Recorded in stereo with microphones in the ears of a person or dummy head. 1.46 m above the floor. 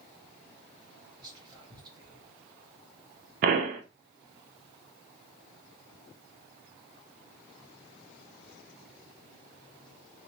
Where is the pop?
50° right (ahead or behind), 0.7 m.